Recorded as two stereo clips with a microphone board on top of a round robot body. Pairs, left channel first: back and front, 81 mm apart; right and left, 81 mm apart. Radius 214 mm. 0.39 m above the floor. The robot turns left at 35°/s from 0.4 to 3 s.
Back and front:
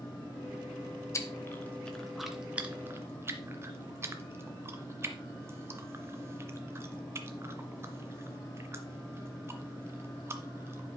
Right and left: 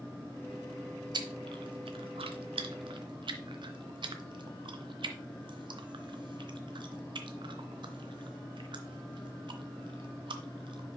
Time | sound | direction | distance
1.1 | chewing | 125° left | 0.6 m